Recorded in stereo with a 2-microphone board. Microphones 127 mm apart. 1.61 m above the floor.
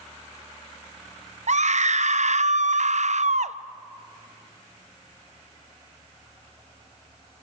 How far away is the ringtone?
I don't hear a ringtone.